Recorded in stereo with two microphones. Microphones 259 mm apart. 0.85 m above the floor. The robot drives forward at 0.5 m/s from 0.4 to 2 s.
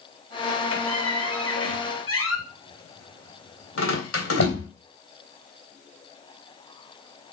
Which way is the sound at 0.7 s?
75° left (ahead or behind).